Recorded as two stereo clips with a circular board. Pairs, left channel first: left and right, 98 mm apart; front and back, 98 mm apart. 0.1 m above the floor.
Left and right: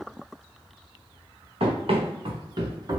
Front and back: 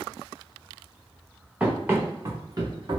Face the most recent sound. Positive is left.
turn(degrees=-140)